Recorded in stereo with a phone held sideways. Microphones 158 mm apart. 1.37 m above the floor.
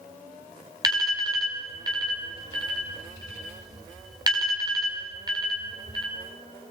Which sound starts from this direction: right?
An alarm, at 0.8 s.